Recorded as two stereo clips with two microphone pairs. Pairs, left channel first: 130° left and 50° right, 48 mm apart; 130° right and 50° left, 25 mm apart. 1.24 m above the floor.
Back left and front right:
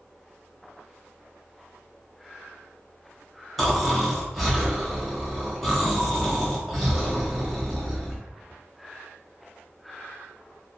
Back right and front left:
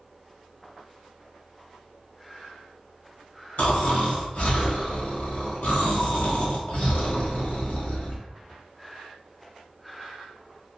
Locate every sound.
3.6 s snoring: 140° right, 0.9 m